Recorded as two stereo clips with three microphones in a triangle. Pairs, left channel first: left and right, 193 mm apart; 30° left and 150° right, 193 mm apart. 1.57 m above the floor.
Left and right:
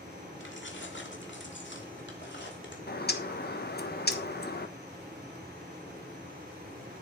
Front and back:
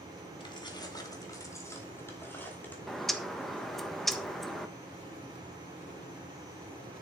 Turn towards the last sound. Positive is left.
turn(degrees=120)